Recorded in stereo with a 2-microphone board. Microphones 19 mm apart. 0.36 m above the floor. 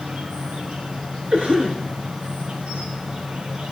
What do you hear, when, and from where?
0.0 s an insect: 75° right (ahead or behind), 4.5 m
1.3 s a cough: 70° right (ahead or behind), 5 m